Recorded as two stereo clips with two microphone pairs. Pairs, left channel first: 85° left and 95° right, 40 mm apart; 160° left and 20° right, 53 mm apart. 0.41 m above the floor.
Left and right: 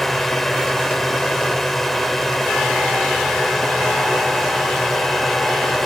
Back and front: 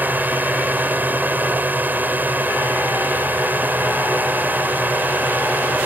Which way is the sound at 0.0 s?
5° left.